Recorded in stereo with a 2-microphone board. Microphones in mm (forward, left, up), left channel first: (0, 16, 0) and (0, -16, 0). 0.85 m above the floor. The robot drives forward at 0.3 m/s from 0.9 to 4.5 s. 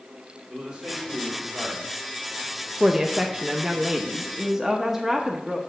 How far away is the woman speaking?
About 0.7 m.